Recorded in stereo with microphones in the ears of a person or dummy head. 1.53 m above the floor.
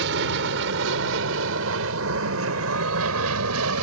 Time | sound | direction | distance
0.0 | an aircraft | 65° right (ahead or behind) | ?